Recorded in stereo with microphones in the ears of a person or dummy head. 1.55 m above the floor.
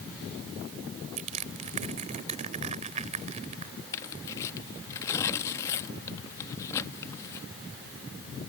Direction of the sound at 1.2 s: 45° right (ahead or behind).